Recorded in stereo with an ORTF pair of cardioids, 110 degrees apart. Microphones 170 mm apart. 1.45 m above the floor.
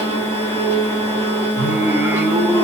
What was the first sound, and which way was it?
A machine running, 15° left.